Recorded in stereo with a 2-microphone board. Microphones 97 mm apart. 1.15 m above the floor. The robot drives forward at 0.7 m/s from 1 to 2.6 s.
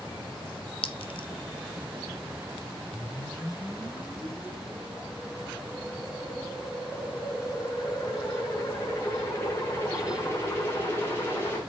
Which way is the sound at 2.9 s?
25° left (ahead or behind).